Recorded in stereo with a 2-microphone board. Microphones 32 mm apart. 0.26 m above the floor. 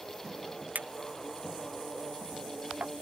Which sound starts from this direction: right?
A clink, at 0.8 s.